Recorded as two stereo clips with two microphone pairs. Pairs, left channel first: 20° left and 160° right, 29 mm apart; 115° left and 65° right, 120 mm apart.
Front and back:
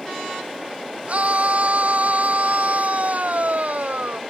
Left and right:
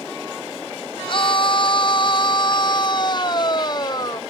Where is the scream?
160° left; by 4.2 s 175° left.